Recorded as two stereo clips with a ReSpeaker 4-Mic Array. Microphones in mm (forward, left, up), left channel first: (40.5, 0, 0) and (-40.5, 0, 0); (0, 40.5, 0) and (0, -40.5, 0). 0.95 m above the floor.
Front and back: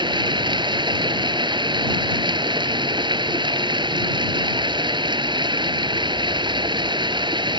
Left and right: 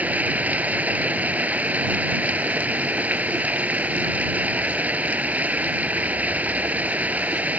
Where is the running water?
160° right.